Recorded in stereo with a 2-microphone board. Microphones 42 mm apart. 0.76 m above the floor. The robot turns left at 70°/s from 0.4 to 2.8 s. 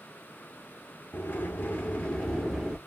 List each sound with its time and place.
1.1 s a sliding door: 100° left, 2 m; by 2.8 s 15° right, 2 m